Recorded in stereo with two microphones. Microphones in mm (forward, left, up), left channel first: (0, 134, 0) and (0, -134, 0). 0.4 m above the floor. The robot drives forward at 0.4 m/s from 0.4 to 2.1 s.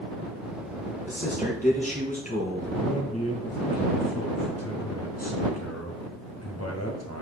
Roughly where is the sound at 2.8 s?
Left.